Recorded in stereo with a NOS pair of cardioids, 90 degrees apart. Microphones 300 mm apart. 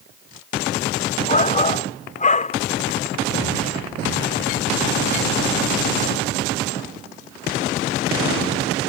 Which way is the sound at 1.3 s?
25° left.